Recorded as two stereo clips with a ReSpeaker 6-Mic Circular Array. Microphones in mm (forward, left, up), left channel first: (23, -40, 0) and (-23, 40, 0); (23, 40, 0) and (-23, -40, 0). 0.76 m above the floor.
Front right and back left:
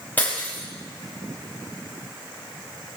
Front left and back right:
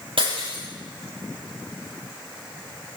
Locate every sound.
0.2 s breaking glass: 130° right, 7.5 m